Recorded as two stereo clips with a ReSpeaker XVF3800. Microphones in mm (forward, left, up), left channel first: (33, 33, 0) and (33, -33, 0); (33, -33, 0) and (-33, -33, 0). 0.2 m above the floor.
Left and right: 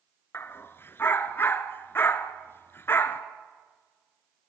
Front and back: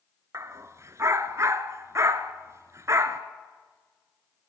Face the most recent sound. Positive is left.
turn(degrees=140)